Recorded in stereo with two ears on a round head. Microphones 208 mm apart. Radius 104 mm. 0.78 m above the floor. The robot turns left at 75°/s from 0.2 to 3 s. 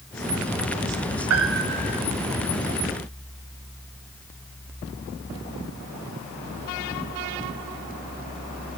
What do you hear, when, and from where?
1.3 s a piano: 105° right, 3 m; by 2.0 s 160° right, 3 m